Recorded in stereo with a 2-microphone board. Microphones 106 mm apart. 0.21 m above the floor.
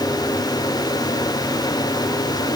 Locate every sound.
Only background noise.